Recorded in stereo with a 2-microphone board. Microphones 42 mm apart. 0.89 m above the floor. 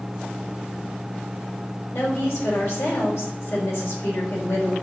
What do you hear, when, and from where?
1.9 s a woman speaking: 75° left (ahead or behind), 3.5 m